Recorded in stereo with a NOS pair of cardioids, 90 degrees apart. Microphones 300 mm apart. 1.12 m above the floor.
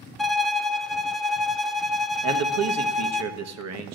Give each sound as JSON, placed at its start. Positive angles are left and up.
{"t": 0.2, "sound": "a violin", "azimuth_deg": 0, "distance_m": 0.5}
{"t": 2.2, "sound": "a man speaking", "azimuth_deg": -60, "distance_m": 1.1}